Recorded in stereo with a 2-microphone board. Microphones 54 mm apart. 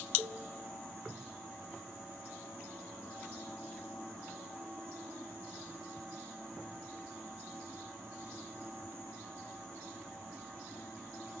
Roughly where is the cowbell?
Right.